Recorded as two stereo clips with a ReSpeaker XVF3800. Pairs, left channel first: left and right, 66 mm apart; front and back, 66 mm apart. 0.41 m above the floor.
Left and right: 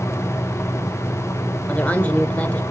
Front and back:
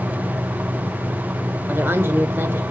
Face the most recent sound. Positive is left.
turn(degrees=145)